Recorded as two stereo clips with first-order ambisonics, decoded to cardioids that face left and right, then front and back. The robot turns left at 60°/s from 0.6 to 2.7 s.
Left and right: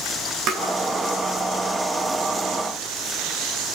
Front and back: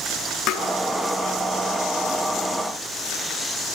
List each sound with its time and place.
0.5 s tapping: 45° right, 4 m